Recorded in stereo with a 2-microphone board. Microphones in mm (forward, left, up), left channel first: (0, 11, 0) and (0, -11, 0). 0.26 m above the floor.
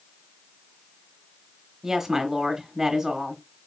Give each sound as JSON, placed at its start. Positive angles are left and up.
{"t": 1.8, "sound": "a woman speaking", "side_deg": -25, "distance_m": 0.9}